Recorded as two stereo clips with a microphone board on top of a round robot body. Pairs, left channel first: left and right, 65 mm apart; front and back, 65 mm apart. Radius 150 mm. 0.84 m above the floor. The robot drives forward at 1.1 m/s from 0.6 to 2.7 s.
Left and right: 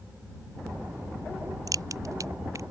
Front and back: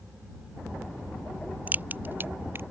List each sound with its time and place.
1.7 s a crack: 115° right; by 2.6 s 130° right